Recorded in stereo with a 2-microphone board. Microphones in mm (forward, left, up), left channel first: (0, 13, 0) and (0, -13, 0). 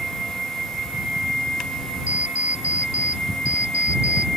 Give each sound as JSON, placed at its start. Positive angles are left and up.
{"t": 2.1, "sound": "an alarm clock", "side_deg": -60}